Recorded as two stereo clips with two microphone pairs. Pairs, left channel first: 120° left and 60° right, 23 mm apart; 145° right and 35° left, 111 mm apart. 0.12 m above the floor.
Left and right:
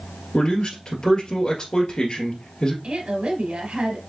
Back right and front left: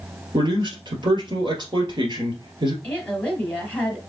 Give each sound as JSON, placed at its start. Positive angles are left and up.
{"t": 0.3, "sound": "a man speaking", "azimuth_deg": 65, "distance_m": 1.8}
{"t": 2.8, "sound": "a woman speaking", "azimuth_deg": -70, "distance_m": 2.0}